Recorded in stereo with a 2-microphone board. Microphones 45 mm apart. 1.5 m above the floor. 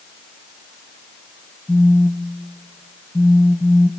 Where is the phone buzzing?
10° right (ahead or behind), 0.9 m.